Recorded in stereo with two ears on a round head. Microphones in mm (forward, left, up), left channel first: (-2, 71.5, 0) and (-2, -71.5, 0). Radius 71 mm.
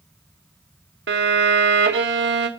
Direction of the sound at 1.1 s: 80° right.